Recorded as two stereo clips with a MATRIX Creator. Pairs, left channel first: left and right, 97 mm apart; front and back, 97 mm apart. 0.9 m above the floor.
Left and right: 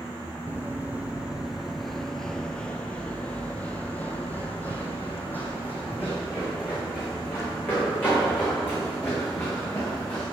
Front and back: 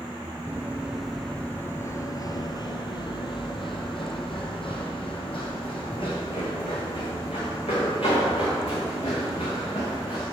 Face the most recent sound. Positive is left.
turn(degrees=20)